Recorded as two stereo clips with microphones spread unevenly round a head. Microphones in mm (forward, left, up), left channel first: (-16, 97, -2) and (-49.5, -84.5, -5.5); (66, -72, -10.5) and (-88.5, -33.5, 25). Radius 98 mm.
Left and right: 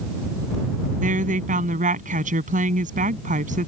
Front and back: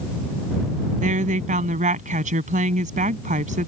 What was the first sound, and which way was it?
A woman speaking, 150° right.